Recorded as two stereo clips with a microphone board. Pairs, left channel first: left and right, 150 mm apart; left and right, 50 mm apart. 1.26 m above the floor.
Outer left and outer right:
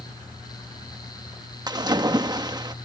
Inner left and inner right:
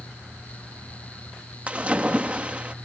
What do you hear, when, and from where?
1.7 s a splash: 25° right (ahead or behind)